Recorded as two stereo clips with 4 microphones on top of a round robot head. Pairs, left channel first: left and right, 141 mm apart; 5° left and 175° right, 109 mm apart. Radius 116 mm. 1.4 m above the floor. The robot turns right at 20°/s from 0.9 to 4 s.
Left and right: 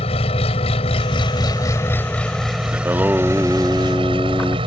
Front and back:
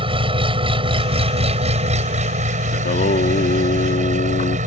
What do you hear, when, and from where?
0.0 s an engine running: 145° left; by 4.7 s 150° right
2.7 s singing: 15° right; by 4.6 s 10° left